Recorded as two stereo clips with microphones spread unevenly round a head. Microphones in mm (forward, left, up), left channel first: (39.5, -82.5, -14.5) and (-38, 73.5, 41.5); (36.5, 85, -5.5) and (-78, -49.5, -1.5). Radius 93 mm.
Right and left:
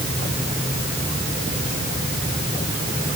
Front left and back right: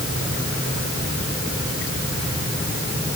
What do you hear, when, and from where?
Only background noise.